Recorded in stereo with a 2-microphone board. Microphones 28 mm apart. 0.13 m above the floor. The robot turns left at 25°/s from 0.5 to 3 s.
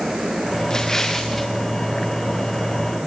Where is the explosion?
25° left (ahead or behind), 2.5 m; by 1.5 s 5° left (ahead or behind), 2.5 m.